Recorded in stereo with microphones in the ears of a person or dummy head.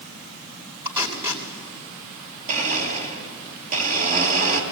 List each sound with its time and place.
0.8 s tape being pulled: 25° right (ahead or behind), 2.5 m
2.5 s a blender: 45° right (ahead or behind), 3 m